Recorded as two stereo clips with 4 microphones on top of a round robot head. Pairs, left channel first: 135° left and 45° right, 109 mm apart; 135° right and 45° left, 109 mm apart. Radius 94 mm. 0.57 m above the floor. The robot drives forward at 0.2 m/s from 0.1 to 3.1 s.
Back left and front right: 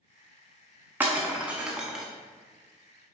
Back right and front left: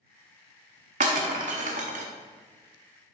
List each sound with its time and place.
1.0 s breaking glass: 30° left, 0.7 m; by 2.0 s 45° left, 0.6 m